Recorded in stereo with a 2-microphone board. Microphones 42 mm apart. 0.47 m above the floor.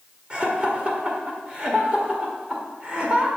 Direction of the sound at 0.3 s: 25° right (ahead or behind).